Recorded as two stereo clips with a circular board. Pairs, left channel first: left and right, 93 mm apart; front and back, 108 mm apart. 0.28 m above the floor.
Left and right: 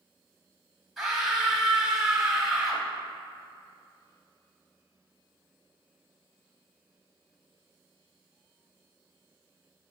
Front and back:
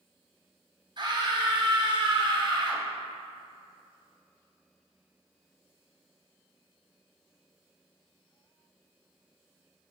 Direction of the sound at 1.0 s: 175° right.